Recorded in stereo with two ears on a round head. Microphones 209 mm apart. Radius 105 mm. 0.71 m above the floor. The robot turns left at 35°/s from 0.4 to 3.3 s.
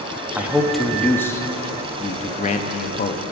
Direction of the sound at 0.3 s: 170° right.